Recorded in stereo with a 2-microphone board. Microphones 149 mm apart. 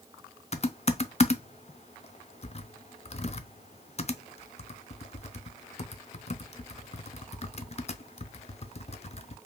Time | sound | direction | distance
0.5 | typing on a keyboard | 45° left (ahead or behind) | 0.5 m